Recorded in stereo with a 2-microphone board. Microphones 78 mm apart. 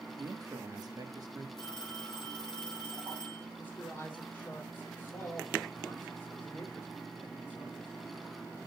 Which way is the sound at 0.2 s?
55° right (ahead or behind).